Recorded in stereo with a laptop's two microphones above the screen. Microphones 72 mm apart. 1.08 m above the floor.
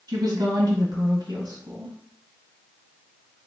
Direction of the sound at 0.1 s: 75° right (ahead or behind).